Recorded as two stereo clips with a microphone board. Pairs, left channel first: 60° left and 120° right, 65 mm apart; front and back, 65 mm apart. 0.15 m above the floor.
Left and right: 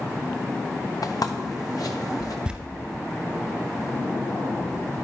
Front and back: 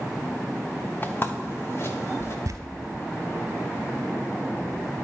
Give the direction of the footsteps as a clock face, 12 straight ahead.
10 o'clock.